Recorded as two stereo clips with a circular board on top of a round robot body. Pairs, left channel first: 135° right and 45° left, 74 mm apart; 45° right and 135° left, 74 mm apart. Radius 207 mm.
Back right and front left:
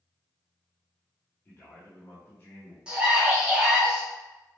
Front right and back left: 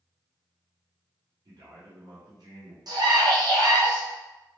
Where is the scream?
120° left, 1.2 m.